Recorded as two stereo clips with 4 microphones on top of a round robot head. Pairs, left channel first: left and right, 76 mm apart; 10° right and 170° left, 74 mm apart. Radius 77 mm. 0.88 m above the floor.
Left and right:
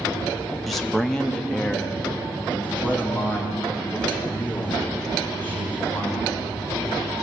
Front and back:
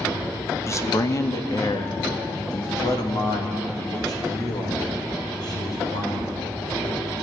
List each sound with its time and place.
0.7 s a man speaking: straight ahead, 1.2 m; by 6.4 s 20° left, 6 m